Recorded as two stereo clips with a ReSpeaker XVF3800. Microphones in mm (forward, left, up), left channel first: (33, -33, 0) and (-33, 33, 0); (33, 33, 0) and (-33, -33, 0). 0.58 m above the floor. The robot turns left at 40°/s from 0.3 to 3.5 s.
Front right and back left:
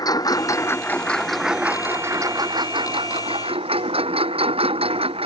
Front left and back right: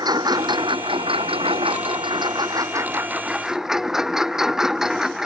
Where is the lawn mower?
90° right; by 5.3 s 140° left.